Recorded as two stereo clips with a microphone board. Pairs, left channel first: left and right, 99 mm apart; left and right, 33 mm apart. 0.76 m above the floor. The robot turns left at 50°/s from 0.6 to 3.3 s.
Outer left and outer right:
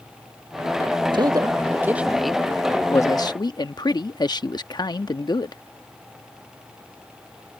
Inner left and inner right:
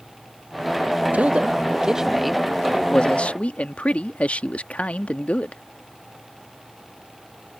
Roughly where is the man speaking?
Behind right.